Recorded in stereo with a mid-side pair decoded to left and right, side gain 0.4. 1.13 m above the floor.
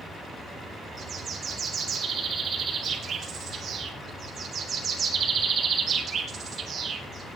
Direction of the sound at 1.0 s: 50° right.